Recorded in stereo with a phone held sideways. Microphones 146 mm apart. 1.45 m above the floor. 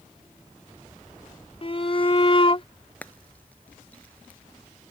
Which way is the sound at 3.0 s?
10° left (ahead or behind).